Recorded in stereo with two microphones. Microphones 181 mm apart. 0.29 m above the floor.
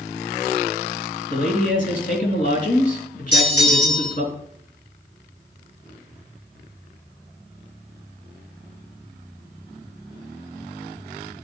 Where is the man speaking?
50° left (ahead or behind), 3 m.